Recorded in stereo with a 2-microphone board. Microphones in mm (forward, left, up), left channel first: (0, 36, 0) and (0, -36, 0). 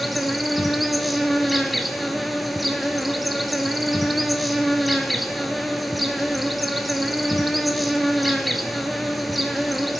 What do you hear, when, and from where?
0.0 s an insect: centre (ahead or behind), 0.8 m